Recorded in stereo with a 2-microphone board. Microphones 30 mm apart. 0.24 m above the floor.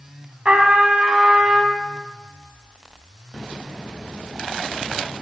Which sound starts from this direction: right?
A trumpet, at 0.5 s.